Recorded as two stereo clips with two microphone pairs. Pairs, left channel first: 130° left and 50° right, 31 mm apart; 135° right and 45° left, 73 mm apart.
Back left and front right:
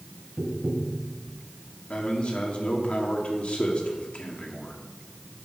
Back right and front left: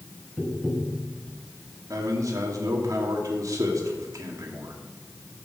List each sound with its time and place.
0.4 s tapping: 45° right, 1.2 m
1.9 s a man speaking: 80° left, 2 m